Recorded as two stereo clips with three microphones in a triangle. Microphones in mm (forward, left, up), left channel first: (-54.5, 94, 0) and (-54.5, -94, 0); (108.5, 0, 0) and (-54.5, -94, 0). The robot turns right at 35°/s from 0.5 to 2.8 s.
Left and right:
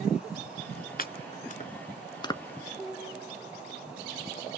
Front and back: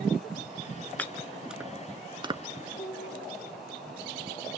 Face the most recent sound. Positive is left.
turn(degrees=10)